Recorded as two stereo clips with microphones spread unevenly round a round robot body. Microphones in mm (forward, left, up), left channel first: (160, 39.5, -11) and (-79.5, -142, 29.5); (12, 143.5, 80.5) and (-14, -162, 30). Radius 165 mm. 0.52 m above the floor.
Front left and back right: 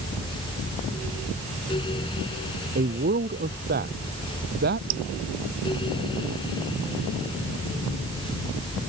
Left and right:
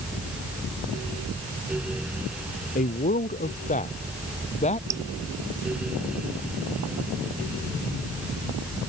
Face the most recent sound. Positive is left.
turn(degrees=-175)